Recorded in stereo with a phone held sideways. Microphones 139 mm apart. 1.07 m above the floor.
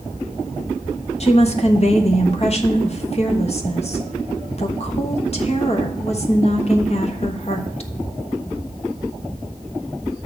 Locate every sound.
1.2 s a woman speaking: 45° left (ahead or behind), 1.1 m